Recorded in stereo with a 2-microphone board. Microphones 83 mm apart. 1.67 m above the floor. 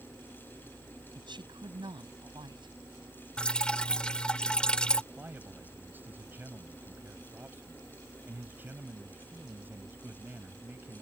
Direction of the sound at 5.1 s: 25° right (ahead or behind).